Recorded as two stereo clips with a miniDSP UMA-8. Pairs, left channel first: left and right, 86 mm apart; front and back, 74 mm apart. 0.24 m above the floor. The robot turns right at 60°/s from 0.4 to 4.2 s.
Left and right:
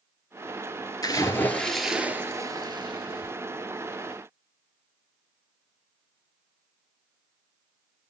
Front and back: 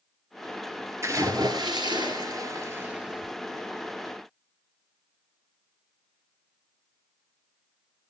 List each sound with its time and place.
1.0 s a splash: 135° left, 1.8 m; by 3.3 s 90° right, 1.8 m